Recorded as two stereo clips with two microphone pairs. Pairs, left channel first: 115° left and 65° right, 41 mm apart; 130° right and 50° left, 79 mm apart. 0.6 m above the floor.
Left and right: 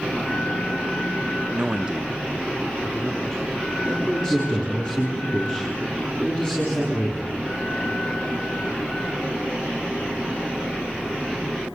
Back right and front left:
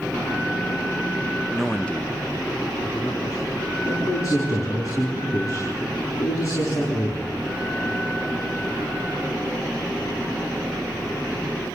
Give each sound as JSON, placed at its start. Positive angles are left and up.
{"t": 1.5, "sound": "a man speaking", "azimuth_deg": -25, "distance_m": 0.9}
{"t": 3.9, "sound": "a man speaking", "azimuth_deg": -175, "distance_m": 7.0}